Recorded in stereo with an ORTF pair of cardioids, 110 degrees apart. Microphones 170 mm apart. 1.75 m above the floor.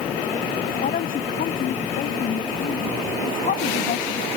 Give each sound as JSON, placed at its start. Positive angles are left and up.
{"t": 0.8, "sound": "a woman speaking", "azimuth_deg": 55}